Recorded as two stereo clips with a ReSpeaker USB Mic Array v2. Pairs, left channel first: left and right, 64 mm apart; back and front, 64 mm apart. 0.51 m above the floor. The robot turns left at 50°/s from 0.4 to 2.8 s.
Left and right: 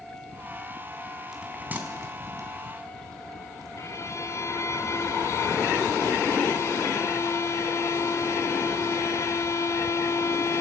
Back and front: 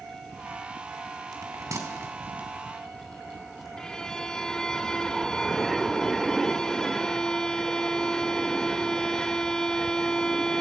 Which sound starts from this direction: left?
A violin, at 3.8 s.